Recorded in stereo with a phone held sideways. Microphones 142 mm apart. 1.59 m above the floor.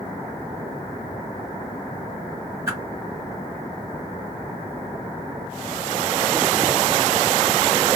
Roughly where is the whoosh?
Centre.